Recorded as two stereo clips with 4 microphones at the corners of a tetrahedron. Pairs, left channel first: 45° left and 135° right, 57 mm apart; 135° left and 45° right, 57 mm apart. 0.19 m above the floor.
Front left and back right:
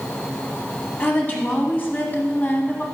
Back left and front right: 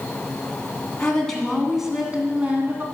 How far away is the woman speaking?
About 1.4 m.